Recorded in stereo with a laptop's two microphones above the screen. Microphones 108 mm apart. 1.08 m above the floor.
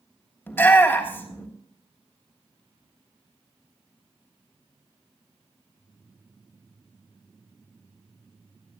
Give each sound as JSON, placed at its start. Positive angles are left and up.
{"t": 0.5, "sound": "a shout", "side_deg": 20, "distance_m": 3.0}